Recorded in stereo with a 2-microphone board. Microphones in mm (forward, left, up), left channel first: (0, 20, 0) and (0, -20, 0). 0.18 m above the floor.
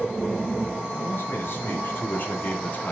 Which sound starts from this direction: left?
A man speaking, at 0.9 s.